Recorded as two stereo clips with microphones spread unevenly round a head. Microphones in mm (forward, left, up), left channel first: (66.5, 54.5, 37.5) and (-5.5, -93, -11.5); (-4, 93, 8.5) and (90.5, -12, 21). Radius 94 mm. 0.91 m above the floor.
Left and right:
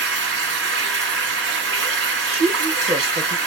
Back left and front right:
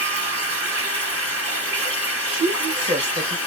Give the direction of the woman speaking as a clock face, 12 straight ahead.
3 o'clock.